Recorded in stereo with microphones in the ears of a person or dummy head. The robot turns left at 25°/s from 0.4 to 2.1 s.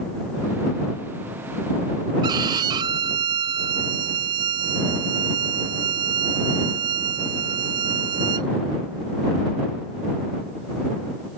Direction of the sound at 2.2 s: 20° right (ahead or behind).